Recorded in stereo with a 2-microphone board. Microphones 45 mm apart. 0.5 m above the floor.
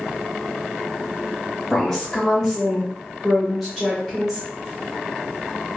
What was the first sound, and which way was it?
A woman speaking, 5° left (ahead or behind).